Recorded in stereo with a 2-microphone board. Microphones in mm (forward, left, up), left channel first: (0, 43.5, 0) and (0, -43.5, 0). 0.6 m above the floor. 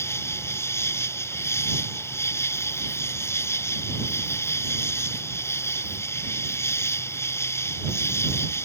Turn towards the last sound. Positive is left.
turn(degrees=30)  # may be behind; listen again after turning